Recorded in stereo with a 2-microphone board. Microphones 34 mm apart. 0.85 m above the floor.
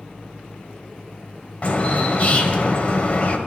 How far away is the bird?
About 1.8 m.